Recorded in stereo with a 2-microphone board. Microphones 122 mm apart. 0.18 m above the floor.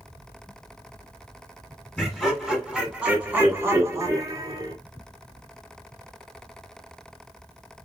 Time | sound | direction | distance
2.0 | laughter | 10° left (ahead or behind) | 2.0 m